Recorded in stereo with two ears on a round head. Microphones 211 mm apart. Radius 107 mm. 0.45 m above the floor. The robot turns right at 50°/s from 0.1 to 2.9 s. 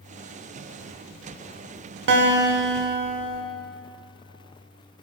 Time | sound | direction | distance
2.1 | a guitar | 95° right | 1.0 m